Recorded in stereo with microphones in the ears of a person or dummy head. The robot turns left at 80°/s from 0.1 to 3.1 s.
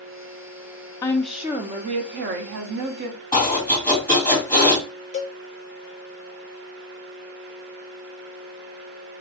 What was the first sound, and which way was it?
A woman speaking, 25° left.